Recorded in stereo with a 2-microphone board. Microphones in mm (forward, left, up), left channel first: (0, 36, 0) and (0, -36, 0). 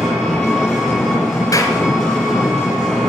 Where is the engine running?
5° left (ahead or behind), 6 m.